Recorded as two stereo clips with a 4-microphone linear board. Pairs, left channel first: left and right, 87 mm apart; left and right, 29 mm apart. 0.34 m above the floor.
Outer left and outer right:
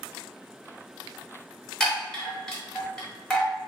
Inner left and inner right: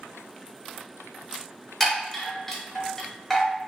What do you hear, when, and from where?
1.8 s a chime: 5° left (ahead or behind), 1.4 m